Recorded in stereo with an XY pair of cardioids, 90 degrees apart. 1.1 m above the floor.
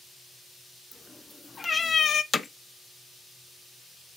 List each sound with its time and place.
0.9 s a cat meowing: 20° left, 1.1 m; by 2.2 s 75° left, 0.5 m
2.3 s hammering: 35° left, 0.6 m